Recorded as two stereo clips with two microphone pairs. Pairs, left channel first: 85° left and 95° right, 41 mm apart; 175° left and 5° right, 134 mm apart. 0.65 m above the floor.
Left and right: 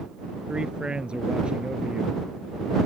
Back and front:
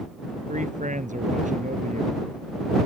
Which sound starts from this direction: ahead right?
A man speaking, at 0.5 s.